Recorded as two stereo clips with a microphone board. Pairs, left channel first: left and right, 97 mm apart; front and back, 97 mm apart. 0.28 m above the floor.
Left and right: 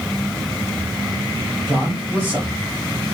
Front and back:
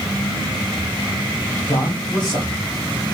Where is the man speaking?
25° right, 2.5 m.